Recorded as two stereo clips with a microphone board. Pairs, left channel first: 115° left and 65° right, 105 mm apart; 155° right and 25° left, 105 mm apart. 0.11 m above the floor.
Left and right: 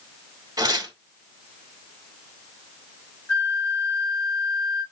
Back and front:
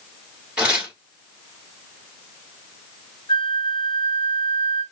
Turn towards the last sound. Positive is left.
turn(degrees=-175)